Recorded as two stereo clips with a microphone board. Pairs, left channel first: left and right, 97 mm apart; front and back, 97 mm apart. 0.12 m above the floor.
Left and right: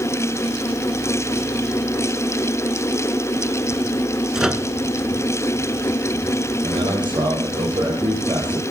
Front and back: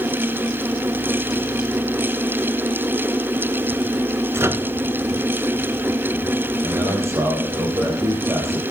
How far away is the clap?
No clap in this recording.